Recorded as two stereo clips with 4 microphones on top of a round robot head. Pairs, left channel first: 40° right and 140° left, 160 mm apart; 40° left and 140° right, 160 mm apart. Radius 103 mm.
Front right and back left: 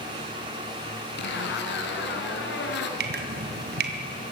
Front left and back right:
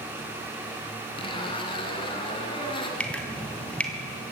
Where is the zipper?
25° right, 2.5 m.